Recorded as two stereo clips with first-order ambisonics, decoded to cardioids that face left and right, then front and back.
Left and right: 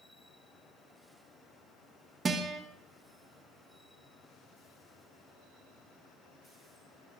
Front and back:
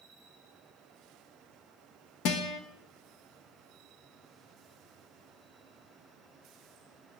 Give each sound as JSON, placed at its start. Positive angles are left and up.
{"t": 2.2, "sound": "a guitar", "azimuth_deg": -20, "distance_m": 1.4}